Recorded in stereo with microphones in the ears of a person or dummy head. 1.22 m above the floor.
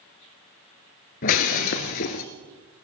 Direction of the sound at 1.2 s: 45° left (ahead or behind).